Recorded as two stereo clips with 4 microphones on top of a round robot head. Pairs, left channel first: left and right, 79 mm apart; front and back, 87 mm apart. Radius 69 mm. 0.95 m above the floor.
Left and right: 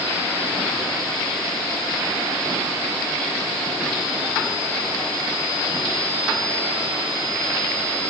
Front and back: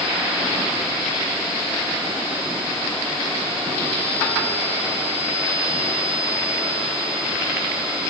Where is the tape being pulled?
I don't hear tape being pulled.